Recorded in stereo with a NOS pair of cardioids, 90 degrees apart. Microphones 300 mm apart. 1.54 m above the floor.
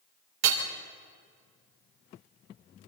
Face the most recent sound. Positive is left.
turn(degrees=-70)